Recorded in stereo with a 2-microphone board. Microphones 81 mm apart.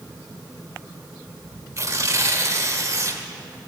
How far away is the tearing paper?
About 1.4 m.